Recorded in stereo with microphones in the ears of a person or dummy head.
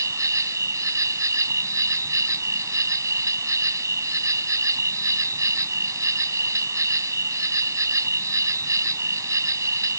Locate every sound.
0.0 s an insect: 15° right (ahead or behind)